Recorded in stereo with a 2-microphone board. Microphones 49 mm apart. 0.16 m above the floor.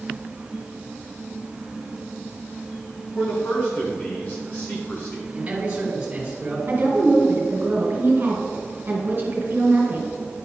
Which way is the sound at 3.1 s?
40° left (ahead or behind).